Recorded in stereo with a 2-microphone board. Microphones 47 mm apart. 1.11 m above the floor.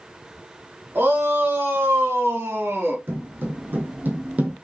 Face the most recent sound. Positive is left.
turn(degrees=-30)  # may be behind; listen again after turning